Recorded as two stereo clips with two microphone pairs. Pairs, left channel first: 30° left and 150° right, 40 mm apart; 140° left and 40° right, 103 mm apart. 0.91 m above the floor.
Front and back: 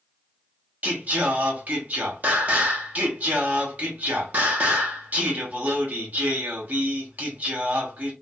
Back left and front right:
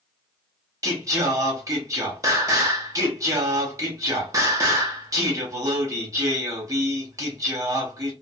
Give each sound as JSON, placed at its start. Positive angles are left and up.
{"t": 0.8, "sound": "singing", "azimuth_deg": -100, "distance_m": 0.8}